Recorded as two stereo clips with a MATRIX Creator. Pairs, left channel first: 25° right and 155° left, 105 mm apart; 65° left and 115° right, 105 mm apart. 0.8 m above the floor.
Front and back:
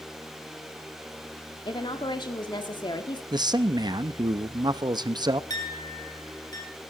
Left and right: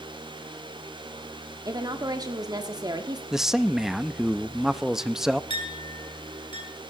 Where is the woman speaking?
60° right, 1.6 m.